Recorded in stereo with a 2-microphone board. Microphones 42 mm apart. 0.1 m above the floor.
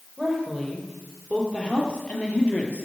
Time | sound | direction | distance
0.2 | a woman speaking | 15° left (ahead or behind) | 3 m